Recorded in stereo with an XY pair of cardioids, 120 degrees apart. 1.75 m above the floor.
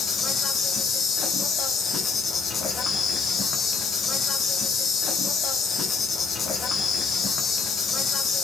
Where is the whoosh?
No whoosh in this recording.